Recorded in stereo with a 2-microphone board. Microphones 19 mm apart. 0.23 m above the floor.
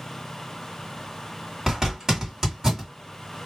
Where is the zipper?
30° right (ahead or behind), 1.8 m.